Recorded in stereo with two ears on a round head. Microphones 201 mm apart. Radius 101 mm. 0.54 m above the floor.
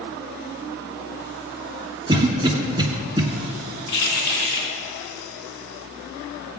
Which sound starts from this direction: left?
Keys jangling, at 3.9 s.